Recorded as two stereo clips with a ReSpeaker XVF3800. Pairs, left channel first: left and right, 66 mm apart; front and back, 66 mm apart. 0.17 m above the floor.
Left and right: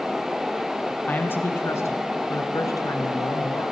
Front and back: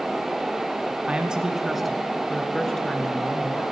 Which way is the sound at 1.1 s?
120° left.